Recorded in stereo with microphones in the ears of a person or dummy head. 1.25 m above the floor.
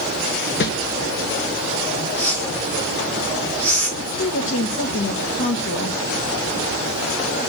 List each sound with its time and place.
0.6 s a whoosh: 50° left (ahead or behind), 0.9 m
2.2 s a whoosh: 10° left (ahead or behind), 4.5 m
4.0 s a woman speaking: 40° left (ahead or behind), 1.7 m